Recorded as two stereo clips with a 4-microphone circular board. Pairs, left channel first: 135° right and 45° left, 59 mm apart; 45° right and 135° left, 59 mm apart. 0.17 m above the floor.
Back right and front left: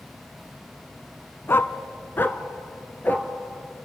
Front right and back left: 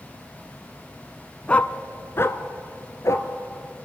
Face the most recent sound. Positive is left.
turn(degrees=-75)